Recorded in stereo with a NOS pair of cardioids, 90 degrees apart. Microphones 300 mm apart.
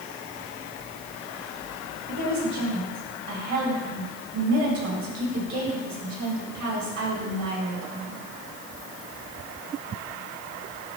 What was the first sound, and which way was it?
A woman speaking, 60° right.